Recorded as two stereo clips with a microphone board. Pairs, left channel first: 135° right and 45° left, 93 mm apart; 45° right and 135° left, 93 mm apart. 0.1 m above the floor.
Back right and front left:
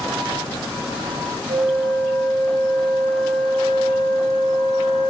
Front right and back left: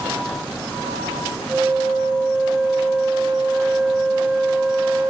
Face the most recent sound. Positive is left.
turn(degrees=55)